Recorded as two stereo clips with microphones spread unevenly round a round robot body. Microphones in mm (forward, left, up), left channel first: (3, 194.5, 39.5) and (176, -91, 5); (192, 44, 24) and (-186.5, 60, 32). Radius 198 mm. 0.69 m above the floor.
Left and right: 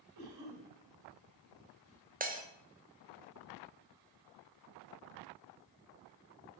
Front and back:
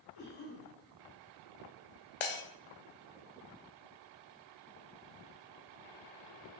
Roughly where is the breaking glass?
Ahead.